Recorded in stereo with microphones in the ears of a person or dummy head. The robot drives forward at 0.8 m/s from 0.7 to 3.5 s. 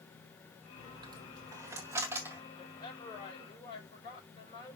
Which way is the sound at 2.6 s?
30° left (ahead or behind).